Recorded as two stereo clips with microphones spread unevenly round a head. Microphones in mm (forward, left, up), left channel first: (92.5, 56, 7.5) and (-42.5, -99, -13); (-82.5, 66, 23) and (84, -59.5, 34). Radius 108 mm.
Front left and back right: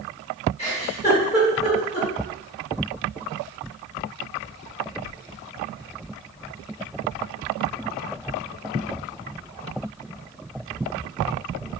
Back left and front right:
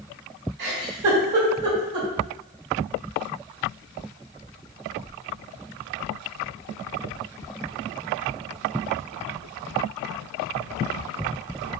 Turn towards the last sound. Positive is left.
turn(degrees=-5)